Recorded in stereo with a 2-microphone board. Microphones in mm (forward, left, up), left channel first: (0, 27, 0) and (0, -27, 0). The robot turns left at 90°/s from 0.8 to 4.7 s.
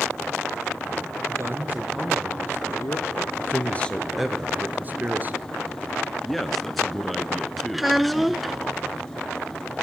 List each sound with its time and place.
1.3 s a man speaking: 110° right, 3 m; by 3.3 s 70° left, 3 m
3.4 s a man speaking: 65° left, 1.5 m; by 5.5 s 50° right, 1.5 m
6.2 s a man speaking: centre (ahead or behind), 1.1 m
7.7 s a child speaking: 5° right (ahead or behind), 0.7 m